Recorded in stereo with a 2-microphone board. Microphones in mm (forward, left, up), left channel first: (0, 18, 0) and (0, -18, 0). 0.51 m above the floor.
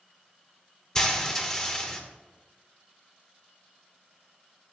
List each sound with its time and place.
0.9 s frying: 20° left (ahead or behind), 0.9 m